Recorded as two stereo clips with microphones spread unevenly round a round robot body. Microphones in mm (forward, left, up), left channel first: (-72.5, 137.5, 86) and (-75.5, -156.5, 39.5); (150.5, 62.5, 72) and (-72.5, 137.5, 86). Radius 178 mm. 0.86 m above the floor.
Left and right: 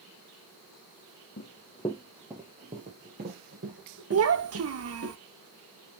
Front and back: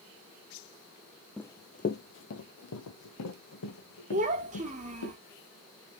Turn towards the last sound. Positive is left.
turn(degrees=-130)